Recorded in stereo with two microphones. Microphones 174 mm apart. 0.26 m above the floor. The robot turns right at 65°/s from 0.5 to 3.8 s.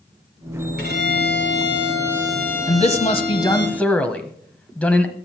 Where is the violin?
100° right, 3.5 m; by 3.7 s 85° left, 3.5 m.